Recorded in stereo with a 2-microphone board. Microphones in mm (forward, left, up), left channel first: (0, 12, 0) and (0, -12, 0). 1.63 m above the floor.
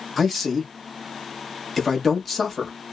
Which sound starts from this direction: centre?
A man speaking, at 0.2 s.